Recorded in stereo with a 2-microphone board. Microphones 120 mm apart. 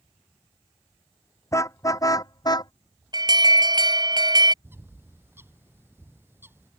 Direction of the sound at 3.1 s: 35° right (ahead or behind).